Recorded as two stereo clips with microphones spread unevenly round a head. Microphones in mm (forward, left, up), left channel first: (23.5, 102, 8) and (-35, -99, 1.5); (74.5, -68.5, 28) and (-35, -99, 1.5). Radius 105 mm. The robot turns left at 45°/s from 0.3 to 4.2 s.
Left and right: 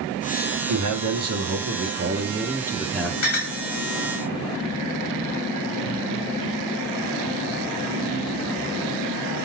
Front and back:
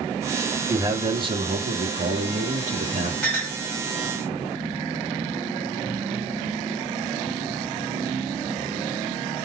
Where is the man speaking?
95° right, 1.8 m; by 3.1 s 155° left, 1.8 m.